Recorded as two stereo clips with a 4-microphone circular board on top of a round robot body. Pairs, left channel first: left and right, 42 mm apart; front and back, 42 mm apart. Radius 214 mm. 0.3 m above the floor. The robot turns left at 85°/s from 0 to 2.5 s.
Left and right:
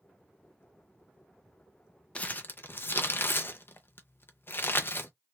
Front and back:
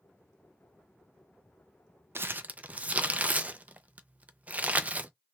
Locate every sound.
2.1 s crumpling: 150° left, 0.6 m; by 5.1 s 120° left, 0.6 m